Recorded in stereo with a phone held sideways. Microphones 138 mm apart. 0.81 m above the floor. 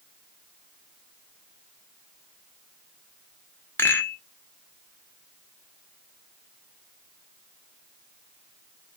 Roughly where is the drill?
No drill in this recording.